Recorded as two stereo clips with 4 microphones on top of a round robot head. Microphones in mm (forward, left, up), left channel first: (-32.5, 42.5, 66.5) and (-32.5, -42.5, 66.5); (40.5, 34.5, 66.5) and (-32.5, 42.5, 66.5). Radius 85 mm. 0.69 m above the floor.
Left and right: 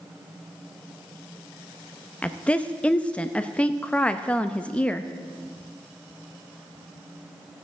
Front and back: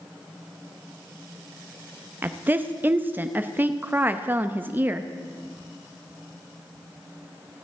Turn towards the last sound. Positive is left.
turn(degrees=150)